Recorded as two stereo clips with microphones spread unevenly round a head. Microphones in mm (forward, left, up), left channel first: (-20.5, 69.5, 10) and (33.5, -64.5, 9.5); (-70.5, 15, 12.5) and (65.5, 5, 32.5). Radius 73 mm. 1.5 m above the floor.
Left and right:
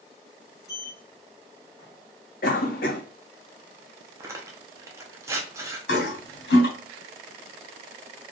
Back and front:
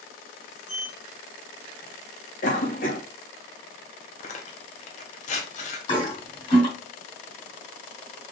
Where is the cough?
145° left, 2 m.